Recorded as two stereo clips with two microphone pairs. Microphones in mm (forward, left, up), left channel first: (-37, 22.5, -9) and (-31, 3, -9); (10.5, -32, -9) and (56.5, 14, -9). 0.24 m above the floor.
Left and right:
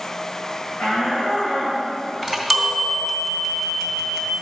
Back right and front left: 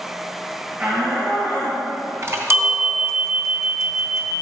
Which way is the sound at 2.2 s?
30° left.